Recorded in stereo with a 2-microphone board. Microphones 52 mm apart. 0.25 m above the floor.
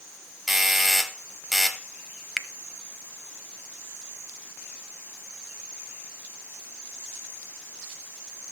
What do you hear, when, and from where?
0.5 s a doorbell: 5° right (ahead or behind), 1.4 m
2.4 s a finger snap: centre (ahead or behind), 0.9 m